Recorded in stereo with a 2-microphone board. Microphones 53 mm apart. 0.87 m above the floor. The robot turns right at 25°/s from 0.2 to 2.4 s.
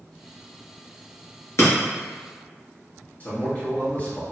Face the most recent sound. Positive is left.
turn(degrees=30)  # may be behind; listen again after turning